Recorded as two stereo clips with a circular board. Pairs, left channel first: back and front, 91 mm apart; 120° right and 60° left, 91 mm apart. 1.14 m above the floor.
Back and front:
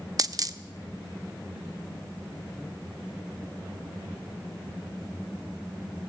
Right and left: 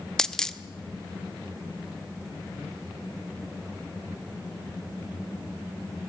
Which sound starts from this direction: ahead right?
A dropped coin, at 0.2 s.